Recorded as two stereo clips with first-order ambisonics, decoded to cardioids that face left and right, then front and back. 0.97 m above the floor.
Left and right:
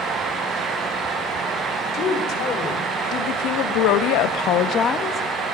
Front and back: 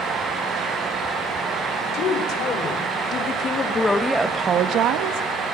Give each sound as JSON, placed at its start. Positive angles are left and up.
{"t": 1.9, "sound": "a woman speaking", "azimuth_deg": 40, "distance_m": 4.0}